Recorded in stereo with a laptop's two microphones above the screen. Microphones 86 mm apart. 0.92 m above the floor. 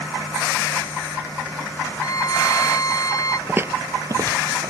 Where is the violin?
40° left (ahead or behind).